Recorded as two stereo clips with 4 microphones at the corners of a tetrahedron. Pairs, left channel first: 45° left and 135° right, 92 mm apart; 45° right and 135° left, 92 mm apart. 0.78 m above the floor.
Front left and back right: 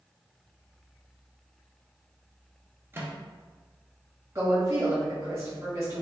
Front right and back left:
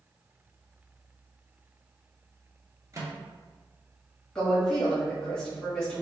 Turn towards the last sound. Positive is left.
turn(degrees=-115)